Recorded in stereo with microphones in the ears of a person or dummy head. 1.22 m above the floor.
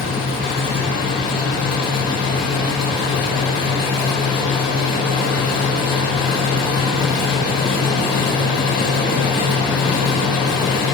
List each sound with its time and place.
0.0 s a fan: 5° right (ahead or behind), 7.5 m